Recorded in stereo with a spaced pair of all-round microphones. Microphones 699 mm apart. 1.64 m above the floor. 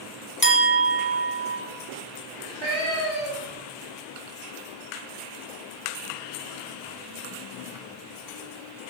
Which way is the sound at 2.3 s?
5° left (ahead or behind).